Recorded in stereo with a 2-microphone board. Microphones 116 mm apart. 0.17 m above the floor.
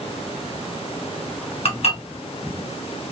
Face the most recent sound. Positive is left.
turn(degrees=55)  # may be behind; listen again after turning